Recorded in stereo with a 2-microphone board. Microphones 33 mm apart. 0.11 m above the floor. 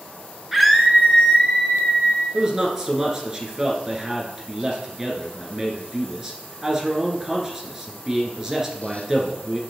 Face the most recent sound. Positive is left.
turn(degrees=-15)  # may be behind; listen again after turning